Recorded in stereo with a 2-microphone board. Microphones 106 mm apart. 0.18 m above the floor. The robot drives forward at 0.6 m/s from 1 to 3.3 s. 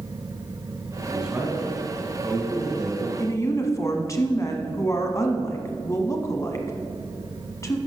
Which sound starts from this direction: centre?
A man speaking, at 1.1 s.